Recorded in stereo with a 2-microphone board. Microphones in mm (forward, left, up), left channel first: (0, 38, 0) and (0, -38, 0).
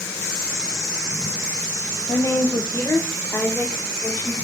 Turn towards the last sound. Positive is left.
turn(degrees=20)  # may be behind; listen again after turning